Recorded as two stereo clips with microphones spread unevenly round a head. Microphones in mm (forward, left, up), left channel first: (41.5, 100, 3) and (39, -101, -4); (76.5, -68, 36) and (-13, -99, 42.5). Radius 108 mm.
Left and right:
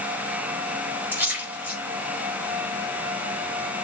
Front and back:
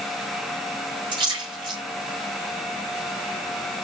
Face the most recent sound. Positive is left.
turn(degrees=-170)